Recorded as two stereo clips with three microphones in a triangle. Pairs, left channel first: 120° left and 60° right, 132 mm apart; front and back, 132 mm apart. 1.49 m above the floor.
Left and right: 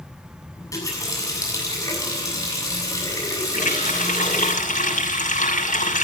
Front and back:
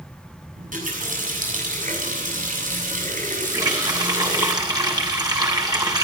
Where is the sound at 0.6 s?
175° right, 7.5 m.